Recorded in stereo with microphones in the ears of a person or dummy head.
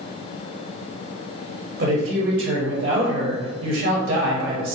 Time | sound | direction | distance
1.8 | a woman speaking | 45° right (ahead or behind) | 0.6 m